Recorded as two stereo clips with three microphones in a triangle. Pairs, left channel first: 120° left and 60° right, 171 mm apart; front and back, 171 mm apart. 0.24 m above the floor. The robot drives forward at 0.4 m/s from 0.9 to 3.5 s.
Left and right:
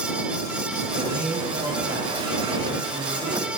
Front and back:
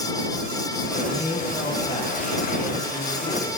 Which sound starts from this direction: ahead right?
A man speaking, at 0.9 s.